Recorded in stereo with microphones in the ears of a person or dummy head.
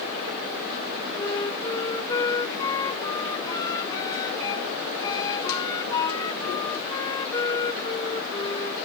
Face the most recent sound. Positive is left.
turn(degrees=20)  # may be behind; listen again after turning